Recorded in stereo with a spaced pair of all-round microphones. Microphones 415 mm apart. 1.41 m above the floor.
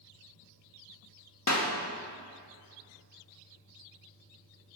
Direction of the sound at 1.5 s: 40° left (ahead or behind).